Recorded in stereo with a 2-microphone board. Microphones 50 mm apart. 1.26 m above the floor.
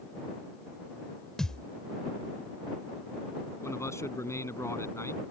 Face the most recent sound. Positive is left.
turn(degrees=75)  # may be behind; listen again after turning